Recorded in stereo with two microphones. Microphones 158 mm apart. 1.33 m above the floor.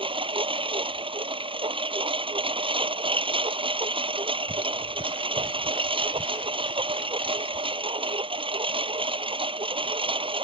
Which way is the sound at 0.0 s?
35° right (ahead or behind).